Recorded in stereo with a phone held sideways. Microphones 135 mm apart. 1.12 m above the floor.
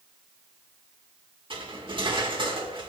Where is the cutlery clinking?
35° right (ahead or behind), 1.9 m.